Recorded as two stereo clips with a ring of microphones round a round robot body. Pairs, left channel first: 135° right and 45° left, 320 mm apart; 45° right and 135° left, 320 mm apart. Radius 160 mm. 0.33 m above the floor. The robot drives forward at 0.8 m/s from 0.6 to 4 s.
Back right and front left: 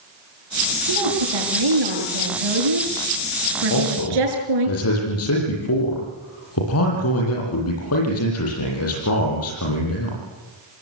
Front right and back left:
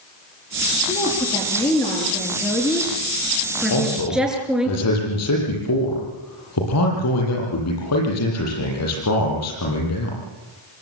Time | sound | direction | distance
0.9 | a woman speaking | 35° left | 7.5 m
3.7 | a man speaking | 85° right | 9 m